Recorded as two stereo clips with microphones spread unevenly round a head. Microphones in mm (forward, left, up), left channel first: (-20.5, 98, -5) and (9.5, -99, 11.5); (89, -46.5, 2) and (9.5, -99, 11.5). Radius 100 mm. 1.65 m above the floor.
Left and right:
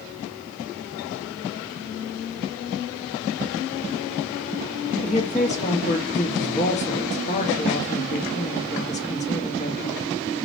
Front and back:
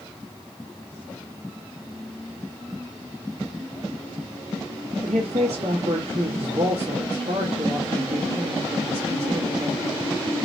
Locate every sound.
5.0 s a woman speaking: 155° left, 1.2 m